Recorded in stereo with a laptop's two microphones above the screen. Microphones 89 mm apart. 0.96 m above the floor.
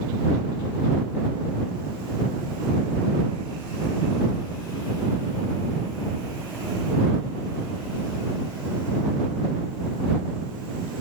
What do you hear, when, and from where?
Only background noise.